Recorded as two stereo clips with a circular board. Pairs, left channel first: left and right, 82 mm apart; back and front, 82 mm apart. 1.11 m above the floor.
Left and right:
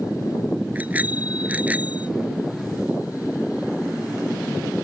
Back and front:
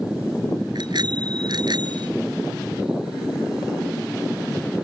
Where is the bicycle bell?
20° right.